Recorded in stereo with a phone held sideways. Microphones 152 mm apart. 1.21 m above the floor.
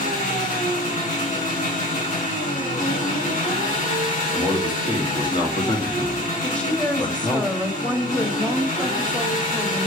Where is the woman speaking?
5° left (ahead or behind), 1.8 m.